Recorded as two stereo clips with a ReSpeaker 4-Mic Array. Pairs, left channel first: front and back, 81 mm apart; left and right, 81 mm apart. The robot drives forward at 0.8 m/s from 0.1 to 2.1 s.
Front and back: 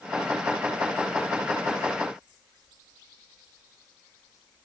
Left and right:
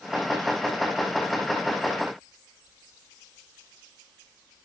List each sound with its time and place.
Only background noise.